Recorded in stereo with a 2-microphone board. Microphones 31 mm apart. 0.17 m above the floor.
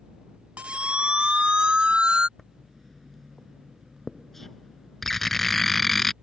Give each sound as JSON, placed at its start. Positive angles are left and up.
{"t": 0.6, "sound": "a siren", "side_deg": -40}
{"t": 2.4, "sound": "writing", "side_deg": 5}